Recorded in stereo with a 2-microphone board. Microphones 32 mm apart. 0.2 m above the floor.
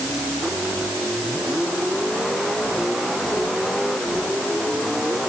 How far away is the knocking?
No knocking in this recording.